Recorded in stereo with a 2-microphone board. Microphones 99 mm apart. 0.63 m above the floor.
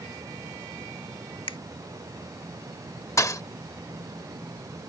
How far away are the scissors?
No scissors in this recording.